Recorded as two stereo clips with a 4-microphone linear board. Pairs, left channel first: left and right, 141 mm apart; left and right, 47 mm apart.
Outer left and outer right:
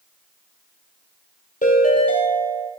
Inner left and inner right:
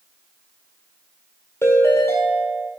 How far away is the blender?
No blender in this recording.